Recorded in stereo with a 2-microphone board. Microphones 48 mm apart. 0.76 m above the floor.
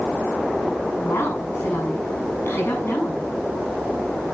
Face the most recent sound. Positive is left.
turn(degrees=60)  # may be behind; listen again after turning